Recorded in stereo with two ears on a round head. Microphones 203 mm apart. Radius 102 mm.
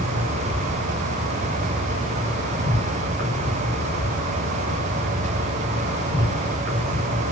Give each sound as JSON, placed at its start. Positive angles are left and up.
{"t": 0.0, "sound": "an insect", "side_deg": -50, "distance_m": 4.0}